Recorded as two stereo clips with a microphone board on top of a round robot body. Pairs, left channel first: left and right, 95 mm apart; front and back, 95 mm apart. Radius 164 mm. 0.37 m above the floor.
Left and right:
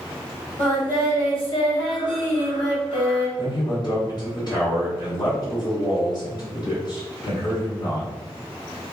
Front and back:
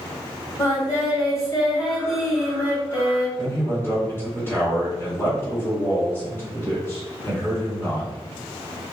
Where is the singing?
60° left, 1.4 m.